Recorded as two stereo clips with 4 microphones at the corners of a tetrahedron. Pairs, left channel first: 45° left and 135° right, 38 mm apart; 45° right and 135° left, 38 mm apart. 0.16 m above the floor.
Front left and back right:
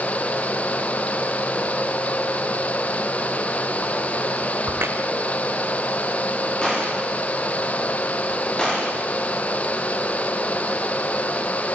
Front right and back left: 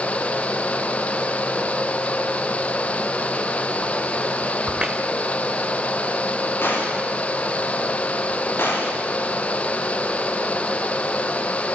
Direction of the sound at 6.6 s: 25° right.